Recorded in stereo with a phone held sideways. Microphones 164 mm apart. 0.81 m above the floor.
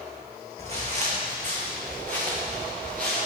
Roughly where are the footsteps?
Right.